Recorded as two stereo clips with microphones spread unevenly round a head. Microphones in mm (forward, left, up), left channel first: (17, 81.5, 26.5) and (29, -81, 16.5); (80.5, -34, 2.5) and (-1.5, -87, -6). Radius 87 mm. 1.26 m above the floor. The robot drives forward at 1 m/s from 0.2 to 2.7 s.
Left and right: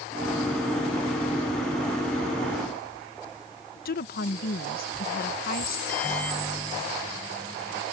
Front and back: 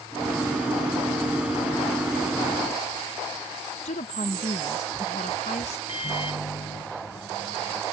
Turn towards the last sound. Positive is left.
turn(degrees=15)